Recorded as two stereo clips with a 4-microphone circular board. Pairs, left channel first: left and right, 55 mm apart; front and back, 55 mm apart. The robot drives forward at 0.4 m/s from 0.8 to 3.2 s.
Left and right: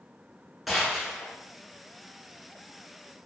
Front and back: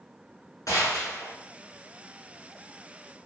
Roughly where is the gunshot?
Ahead.